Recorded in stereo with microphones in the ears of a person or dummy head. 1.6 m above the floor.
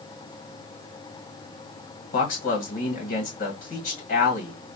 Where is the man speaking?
50° left (ahead or behind), 1.4 m.